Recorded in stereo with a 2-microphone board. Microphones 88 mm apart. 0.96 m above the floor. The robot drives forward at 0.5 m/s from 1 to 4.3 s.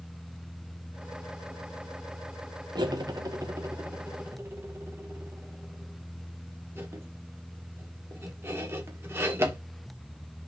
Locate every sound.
2.8 s cutlery clinking: 55° right (ahead or behind), 0.9 m; by 9.6 s 30° right (ahead or behind), 1.5 m